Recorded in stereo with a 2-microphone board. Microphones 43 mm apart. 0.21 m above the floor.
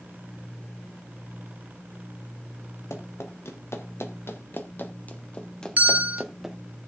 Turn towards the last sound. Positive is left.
turn(degrees=-40)  # may be behind; listen again after turning